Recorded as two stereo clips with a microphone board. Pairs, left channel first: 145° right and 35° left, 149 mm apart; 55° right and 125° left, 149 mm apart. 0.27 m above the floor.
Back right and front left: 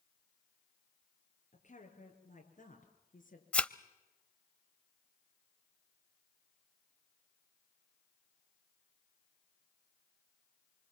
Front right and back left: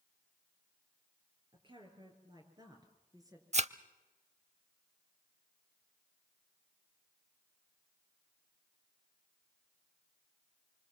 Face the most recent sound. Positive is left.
turn(degrees=135)